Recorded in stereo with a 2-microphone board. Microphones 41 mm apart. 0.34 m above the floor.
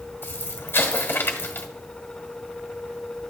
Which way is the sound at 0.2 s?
55° left (ahead or behind).